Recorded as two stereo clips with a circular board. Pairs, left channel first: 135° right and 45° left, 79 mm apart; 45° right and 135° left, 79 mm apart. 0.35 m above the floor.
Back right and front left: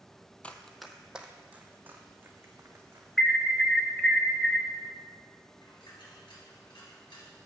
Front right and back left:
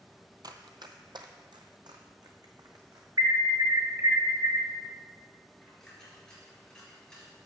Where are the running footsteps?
155° left, 0.6 m; by 3.1 s 105° left, 1.9 m.